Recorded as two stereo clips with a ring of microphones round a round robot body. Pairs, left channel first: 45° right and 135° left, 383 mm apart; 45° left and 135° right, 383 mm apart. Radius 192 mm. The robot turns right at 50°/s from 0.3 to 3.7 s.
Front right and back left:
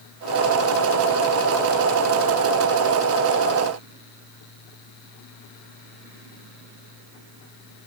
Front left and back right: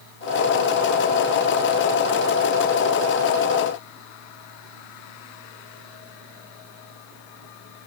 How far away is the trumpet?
I don't hear a trumpet.